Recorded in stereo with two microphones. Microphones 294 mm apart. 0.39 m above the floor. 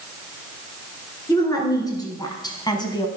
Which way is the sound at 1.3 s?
15° left (ahead or behind).